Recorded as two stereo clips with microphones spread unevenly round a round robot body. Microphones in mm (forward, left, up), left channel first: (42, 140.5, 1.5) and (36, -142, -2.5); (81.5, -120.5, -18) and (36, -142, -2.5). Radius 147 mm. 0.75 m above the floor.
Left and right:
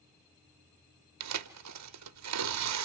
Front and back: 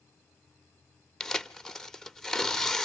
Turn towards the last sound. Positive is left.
turn(degrees=-55)